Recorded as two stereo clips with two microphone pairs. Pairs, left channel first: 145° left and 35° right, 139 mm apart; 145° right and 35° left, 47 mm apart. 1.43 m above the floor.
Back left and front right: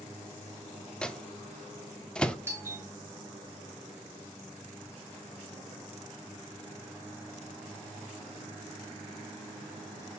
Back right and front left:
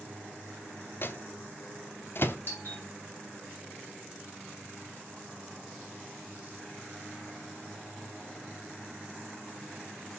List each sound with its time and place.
1.0 s a microwave: 130° right, 0.6 m
2.5 s a doorbell: 105° right, 3.5 m